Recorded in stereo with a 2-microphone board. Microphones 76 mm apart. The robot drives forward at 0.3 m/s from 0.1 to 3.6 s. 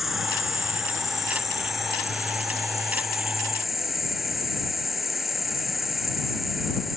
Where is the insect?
Centre (ahead or behind).